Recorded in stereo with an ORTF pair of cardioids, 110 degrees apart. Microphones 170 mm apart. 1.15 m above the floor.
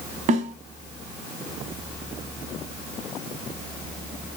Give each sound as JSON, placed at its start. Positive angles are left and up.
{"t": 0.3, "sound": "a snare drum", "azimuth_deg": -50, "distance_m": 3.0}